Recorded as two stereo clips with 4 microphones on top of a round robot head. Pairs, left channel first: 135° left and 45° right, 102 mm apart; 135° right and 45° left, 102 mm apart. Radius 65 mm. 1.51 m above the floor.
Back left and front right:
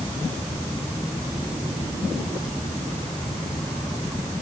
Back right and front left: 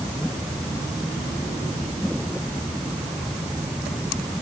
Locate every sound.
Only background noise.